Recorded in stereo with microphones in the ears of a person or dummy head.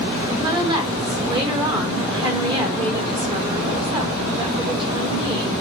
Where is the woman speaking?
25° right (ahead or behind), 4 m.